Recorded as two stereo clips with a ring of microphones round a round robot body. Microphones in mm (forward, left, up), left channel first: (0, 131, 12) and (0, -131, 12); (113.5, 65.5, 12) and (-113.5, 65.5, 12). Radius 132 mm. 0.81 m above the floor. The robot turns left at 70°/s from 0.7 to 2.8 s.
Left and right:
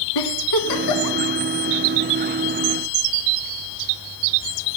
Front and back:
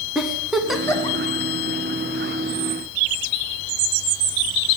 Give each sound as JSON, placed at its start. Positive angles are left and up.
{"t": 0.1, "sound": "a giggle", "azimuth_deg": 90, "distance_m": 1.5}